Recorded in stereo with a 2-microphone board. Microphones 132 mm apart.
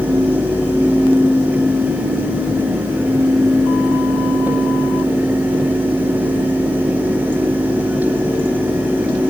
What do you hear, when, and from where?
Only background noise.